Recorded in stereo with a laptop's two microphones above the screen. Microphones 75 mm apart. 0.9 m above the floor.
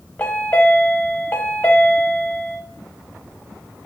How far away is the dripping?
I don't hear dripping.